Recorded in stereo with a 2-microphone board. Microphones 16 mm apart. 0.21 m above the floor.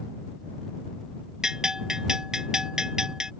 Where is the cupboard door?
No cupboard door in this recording.